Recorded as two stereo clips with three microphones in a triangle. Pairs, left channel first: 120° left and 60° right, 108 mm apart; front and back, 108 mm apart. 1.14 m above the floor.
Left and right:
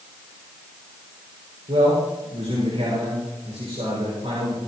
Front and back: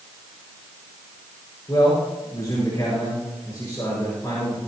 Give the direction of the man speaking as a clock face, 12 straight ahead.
2 o'clock.